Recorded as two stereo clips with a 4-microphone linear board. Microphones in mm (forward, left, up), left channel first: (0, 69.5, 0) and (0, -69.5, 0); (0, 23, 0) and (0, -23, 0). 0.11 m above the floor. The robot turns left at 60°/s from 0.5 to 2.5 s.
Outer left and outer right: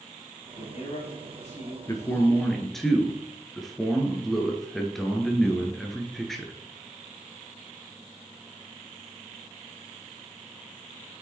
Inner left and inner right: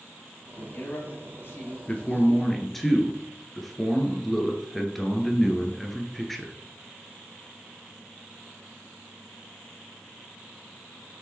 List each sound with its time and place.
0.6 s a man speaking: 130° left, 3 m; by 1.8 s 55° left, 3 m
1.9 s a man speaking: 40° left, 1.4 m; by 6.5 s 5° left, 1.4 m